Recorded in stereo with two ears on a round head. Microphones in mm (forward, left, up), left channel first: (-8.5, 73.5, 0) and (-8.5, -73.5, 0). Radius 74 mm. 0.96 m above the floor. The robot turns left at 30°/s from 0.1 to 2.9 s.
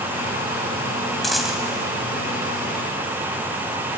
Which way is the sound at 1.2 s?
Centre (ahead or behind).